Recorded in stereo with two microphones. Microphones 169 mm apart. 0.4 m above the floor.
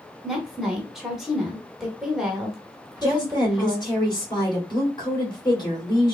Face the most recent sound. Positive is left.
turn(degrees=25)  # may be behind; listen again after turning